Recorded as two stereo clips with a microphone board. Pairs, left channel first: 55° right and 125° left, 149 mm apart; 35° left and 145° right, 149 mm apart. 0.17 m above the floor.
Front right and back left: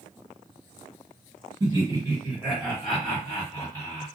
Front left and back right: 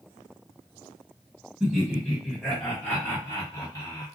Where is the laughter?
140° left, 1.5 m; by 4.1 s 5° right, 1.6 m.